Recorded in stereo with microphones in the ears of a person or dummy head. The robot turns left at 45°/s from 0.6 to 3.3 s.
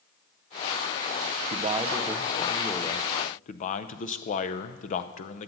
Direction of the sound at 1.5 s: 140° right.